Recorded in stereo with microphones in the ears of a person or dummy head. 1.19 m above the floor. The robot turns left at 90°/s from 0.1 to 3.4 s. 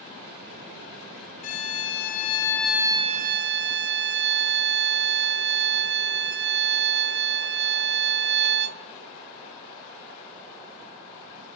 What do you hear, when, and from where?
1.4 s a violin: 115° left, 1.6 m; by 8.8 s 65° right, 1.6 m